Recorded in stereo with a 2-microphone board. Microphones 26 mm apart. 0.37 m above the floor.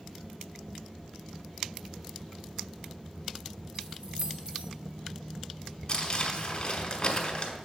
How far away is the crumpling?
About 1.6 m.